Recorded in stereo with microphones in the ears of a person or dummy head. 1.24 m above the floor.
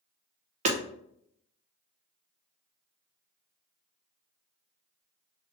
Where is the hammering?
40° right (ahead or behind), 0.5 m.